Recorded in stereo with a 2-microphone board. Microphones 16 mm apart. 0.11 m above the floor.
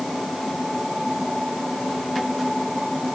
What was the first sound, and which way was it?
Only background noise.